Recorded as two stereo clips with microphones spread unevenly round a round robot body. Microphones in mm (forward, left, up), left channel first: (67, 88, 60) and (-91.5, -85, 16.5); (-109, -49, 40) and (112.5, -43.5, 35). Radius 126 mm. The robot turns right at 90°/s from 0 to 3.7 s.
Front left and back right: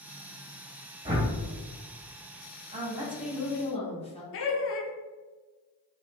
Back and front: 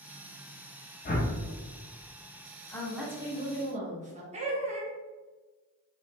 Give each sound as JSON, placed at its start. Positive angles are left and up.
{"t": 1.1, "sound": "a whoosh", "azimuth_deg": -175, "distance_m": 0.8}
{"t": 2.7, "sound": "a woman speaking", "azimuth_deg": -110, "distance_m": 0.9}
{"t": 4.3, "sound": "laughter", "azimuth_deg": 45, "distance_m": 0.6}